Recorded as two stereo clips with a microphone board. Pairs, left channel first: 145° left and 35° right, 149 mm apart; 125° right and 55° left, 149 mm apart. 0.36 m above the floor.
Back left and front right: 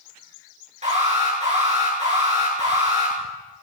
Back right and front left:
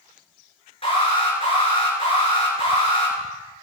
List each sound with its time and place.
0.8 s an alarm: 75° right, 6.5 m